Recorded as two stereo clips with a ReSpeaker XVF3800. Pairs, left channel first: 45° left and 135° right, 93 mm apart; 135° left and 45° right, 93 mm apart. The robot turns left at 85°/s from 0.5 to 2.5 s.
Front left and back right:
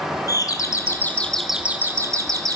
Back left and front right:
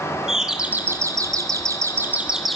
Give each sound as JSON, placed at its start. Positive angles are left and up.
{"t": 0.3, "sound": "a doorbell", "azimuth_deg": 35, "distance_m": 1.7}